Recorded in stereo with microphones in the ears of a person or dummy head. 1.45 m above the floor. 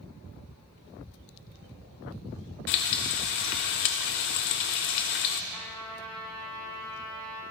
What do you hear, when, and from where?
2.7 s frying: 45° left (ahead or behind), 0.5 m
5.5 s a trumpet: 15° left (ahead or behind), 4.5 m